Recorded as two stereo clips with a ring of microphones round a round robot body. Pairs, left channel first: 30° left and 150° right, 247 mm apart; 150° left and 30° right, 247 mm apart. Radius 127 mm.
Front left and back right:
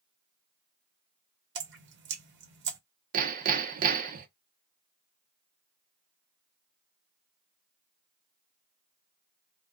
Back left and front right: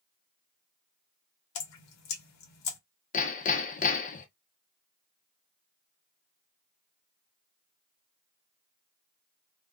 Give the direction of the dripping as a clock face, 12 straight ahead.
7 o'clock.